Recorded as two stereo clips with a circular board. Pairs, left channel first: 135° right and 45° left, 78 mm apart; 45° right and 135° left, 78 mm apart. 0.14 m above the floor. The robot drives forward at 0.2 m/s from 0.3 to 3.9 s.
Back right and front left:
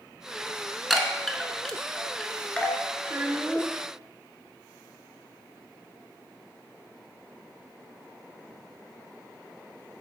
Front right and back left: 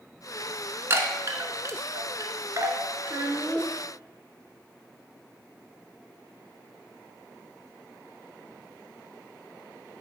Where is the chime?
130° left, 0.8 m; by 2.8 s 155° left, 1.1 m.